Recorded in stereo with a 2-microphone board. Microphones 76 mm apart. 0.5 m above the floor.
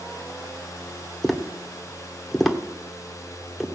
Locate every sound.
1.2 s tapping: 5° left (ahead or behind), 1.6 m